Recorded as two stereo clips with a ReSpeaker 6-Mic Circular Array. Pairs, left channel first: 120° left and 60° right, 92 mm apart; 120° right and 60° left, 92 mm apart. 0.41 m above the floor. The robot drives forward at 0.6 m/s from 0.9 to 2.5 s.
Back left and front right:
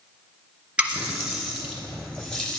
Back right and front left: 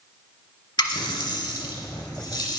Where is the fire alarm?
I don't hear a fire alarm.